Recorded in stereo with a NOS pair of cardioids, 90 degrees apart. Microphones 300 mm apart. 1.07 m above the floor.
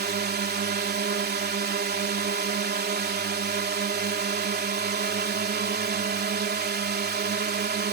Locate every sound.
0.0 s a drone: 35° right